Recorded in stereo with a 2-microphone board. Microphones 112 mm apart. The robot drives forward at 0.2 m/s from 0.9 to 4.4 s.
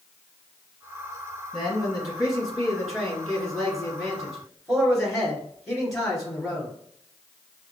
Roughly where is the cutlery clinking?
No cutlery clinking in this recording.